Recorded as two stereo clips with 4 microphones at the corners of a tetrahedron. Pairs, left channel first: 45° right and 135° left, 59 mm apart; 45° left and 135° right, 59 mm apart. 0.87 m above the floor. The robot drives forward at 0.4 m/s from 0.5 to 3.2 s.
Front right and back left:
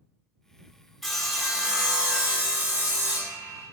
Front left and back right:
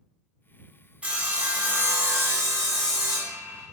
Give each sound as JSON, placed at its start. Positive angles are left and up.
{"t": 1.0, "sound": "sawing", "azimuth_deg": -130, "distance_m": 0.8}